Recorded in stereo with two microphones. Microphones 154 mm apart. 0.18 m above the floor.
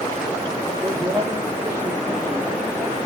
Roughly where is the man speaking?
Right.